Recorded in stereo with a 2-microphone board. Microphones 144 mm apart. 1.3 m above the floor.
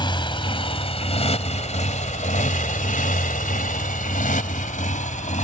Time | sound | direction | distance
0.0 | a motorcycle | 35° left (ahead or behind) | ?